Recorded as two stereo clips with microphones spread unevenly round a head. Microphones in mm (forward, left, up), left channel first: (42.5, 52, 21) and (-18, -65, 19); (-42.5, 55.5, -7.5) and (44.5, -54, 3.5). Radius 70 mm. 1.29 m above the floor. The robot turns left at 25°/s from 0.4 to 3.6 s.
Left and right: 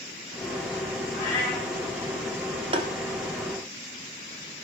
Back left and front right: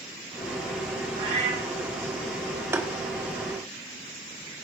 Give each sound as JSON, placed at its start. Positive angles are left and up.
{"t": 1.1, "sound": "a cat meowing", "azimuth_deg": 0, "distance_m": 6.5}
{"t": 2.7, "sound": "tapping", "azimuth_deg": -105, "distance_m": 0.9}